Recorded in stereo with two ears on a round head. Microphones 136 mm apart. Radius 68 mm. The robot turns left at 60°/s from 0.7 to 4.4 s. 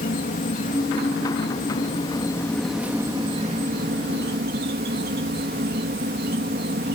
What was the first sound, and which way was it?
An insect, 120° left.